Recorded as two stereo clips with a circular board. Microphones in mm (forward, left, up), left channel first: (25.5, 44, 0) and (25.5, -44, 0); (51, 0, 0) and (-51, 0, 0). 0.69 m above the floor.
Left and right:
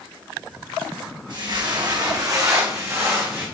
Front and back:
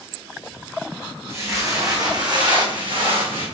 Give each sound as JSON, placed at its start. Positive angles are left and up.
{"t": 1.3, "sound": "footsteps", "azimuth_deg": -115, "distance_m": 3.0}